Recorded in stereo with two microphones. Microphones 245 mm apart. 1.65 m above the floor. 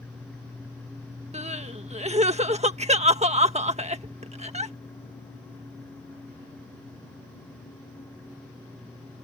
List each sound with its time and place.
1.3 s crying: 25° right (ahead or behind)